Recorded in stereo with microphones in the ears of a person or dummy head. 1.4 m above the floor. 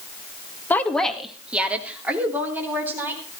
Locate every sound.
0.7 s a woman speaking: 5° left (ahead or behind), 1.6 m; by 3.2 s 10° right (ahead or behind), 5 m